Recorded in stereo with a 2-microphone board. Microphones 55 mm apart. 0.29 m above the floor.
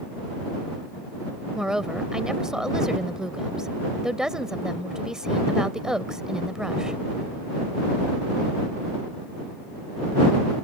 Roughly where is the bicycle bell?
I don't hear a bicycle bell.